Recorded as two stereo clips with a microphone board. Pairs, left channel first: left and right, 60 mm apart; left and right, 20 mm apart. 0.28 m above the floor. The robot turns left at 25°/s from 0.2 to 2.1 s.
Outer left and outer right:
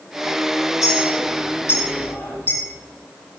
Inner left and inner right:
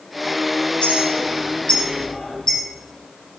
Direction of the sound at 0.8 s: 65° left (ahead or behind).